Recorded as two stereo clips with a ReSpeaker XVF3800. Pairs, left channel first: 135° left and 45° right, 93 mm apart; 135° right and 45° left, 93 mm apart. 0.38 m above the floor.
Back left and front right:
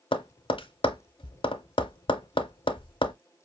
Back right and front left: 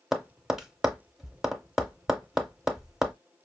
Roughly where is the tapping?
Behind left.